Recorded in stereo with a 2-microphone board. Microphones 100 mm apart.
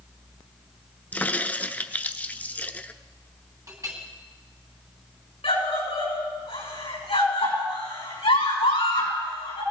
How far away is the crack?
About 0.8 m.